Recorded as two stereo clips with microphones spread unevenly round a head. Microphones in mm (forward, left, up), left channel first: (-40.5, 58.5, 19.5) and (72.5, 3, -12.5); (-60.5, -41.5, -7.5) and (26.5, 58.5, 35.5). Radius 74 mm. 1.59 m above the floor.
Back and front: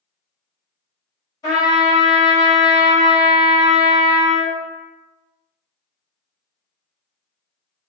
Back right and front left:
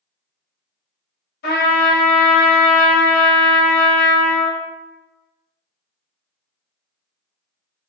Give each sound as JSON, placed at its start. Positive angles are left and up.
{"t": 1.4, "sound": "a trumpet", "azimuth_deg": -140, "distance_m": 1.2}